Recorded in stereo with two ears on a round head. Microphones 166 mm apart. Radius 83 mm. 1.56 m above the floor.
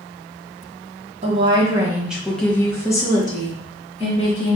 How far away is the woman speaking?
About 0.8 m.